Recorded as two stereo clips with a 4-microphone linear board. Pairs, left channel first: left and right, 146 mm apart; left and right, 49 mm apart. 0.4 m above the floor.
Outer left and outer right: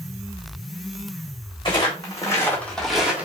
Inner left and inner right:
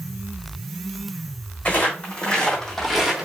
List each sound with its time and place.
1.6 s footsteps: 30° left (ahead or behind), 1.4 m; by 3.3 s 15° right (ahead or behind), 0.9 m